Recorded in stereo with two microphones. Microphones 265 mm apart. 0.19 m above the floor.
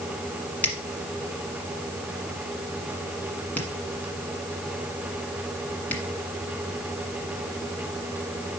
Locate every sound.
0.6 s a finger snap: 5° left (ahead or behind), 1.4 m